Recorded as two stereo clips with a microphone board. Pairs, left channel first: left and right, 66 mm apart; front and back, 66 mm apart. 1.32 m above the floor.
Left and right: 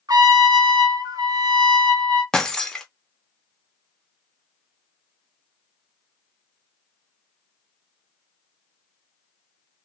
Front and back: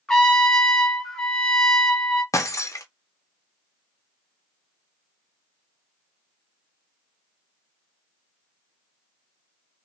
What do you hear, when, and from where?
0.1 s a trumpet: 80° right, 0.8 m
2.3 s breaking glass: 15° left, 0.6 m